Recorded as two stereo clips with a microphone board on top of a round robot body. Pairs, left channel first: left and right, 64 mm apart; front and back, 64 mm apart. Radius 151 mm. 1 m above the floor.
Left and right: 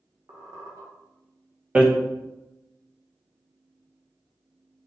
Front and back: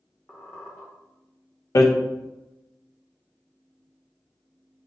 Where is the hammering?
20° right, 1.3 m.